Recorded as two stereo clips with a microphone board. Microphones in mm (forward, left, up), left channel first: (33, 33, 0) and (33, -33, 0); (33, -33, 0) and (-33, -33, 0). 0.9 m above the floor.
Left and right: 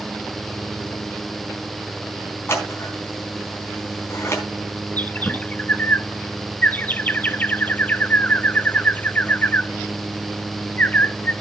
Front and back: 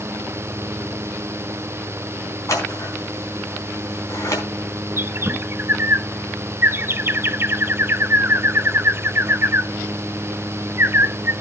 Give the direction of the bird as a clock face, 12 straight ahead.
7 o'clock.